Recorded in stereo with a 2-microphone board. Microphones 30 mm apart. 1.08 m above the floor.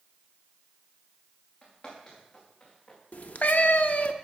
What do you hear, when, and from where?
1.6 s footsteps: 45° left (ahead or behind), 4.5 m; by 3.0 s 35° left (ahead or behind), 4.5 m
3.1 s a cat meowing: 55° left (ahead or behind), 0.5 m